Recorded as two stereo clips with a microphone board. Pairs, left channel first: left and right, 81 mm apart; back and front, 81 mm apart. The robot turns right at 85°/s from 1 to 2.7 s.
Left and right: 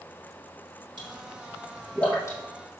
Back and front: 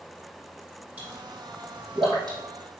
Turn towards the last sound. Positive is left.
turn(degrees=70)